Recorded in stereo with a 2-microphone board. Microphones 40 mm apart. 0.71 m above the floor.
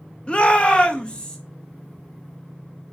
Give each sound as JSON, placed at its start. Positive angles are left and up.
{"t": 0.3, "sound": "a shout", "side_deg": 25, "distance_m": 0.7}